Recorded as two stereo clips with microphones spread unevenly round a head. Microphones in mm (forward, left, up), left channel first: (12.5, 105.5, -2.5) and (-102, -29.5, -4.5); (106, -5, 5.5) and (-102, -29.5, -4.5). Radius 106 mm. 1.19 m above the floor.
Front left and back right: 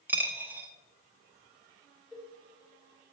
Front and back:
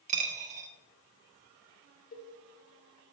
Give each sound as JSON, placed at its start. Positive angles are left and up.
{"t": 0.1, "sound": "a dropped coin", "azimuth_deg": 155, "distance_m": 0.7}
{"t": 2.1, "sound": "a cowbell", "azimuth_deg": -45, "distance_m": 0.9}